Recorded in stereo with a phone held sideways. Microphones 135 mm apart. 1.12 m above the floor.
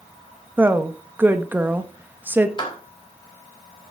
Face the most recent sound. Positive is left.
turn(degrees=35)  # may be behind; listen again after turning